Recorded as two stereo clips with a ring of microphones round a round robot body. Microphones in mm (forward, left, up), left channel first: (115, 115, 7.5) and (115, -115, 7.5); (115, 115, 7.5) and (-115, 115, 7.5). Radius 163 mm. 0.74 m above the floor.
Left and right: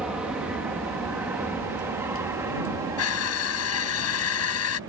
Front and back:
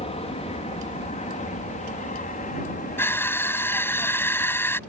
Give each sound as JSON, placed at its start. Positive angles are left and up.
{"t": 0.0, "sound": "an aircraft", "azimuth_deg": -10}
{"t": 3.0, "sound": "crushing", "azimuth_deg": 80}